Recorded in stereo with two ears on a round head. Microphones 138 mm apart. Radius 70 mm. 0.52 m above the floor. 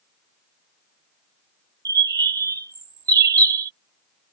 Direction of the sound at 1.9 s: 25° right (ahead or behind).